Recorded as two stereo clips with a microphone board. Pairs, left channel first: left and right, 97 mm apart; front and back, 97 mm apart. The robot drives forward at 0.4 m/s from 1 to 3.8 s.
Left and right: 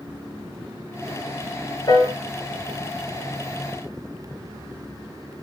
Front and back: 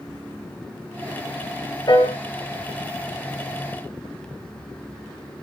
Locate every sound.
1.9 s a piano: 45° left, 4.5 m